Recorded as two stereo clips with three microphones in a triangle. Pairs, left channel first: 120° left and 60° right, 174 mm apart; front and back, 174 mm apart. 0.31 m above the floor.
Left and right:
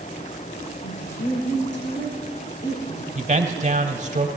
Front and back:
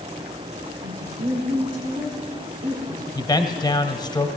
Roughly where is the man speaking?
Ahead right.